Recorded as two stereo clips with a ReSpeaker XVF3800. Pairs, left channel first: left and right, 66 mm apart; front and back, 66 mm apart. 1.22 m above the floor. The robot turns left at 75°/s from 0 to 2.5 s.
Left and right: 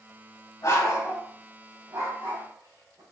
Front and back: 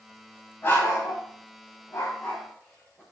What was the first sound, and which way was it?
A dog barking, 55° left.